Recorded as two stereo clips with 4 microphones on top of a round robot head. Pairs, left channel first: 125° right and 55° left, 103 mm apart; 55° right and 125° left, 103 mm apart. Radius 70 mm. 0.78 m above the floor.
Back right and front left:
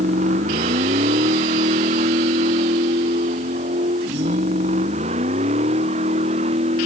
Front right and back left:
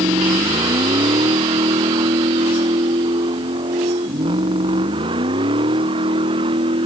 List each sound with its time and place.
0.0 s a vehicle: 70° left; by 6.9 s 85° left